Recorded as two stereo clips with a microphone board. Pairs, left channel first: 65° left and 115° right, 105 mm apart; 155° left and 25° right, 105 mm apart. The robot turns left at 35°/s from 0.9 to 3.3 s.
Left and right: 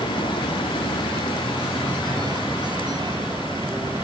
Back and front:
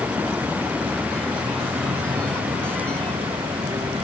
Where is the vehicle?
40° left; by 4.0 s 45° right.